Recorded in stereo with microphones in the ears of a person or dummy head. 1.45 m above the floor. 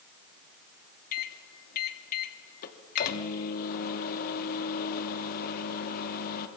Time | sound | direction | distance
1.1 | a microwave | 50° left (ahead or behind) | 2.5 m